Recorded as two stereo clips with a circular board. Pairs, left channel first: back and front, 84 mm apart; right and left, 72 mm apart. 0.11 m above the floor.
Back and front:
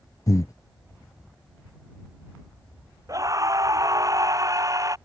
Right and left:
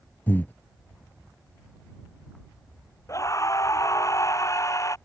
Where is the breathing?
145° right.